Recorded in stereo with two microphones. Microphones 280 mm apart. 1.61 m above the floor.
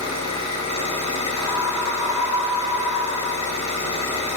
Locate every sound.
0.0 s an engine running: 75° right (ahead or behind), 4 m
1.4 s a scream: 10° right (ahead or behind), 3 m